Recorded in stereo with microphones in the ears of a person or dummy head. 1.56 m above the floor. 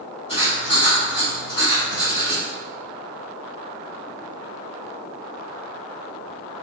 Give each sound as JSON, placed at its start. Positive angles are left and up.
{"t": 0.3, "sound": "writing", "side_deg": 25, "distance_m": 1.8}